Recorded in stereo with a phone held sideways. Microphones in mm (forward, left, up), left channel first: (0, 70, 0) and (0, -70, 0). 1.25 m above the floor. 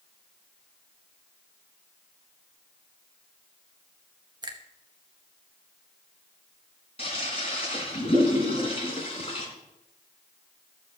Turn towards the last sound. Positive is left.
turn(degrees=45)  # may be behind; listen again after turning